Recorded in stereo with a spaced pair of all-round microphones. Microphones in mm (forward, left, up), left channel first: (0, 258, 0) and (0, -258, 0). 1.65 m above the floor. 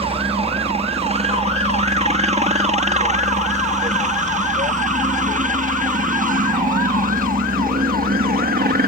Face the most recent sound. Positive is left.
turn(degrees=-15)  # may be behind; listen again after turning